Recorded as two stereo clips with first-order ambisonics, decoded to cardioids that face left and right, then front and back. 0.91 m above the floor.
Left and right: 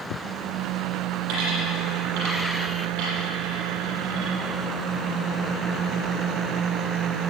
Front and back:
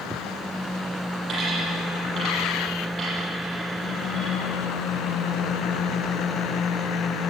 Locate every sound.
1.3 s a dropped coin: 110° right, 6.5 m